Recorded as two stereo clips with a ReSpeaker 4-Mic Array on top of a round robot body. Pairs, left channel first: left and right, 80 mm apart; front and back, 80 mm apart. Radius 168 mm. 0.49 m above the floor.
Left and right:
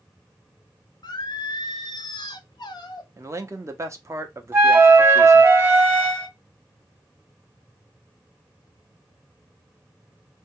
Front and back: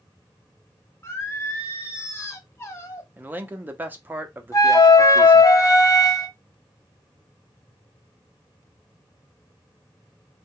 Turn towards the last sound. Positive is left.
turn(degrees=-35)